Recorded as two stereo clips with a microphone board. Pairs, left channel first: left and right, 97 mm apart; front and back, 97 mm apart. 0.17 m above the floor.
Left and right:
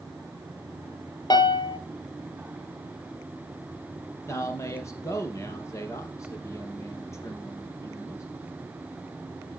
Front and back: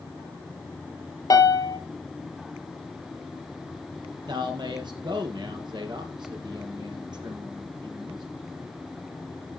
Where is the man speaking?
145° left, 4 m.